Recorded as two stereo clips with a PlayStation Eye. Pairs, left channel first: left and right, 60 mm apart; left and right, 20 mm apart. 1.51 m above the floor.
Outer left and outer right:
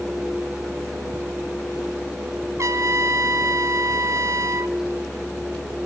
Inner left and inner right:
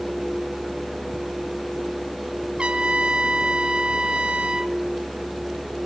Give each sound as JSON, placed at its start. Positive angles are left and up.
{"t": 2.6, "sound": "a trumpet", "side_deg": -60, "distance_m": 0.7}